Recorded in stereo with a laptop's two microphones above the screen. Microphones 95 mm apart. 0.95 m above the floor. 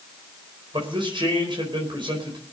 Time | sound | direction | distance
0.7 | a man speaking | 60° right (ahead or behind) | 4.5 m